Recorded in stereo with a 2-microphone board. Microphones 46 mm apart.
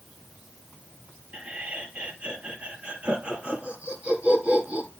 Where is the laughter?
30° right (ahead or behind), 3 m.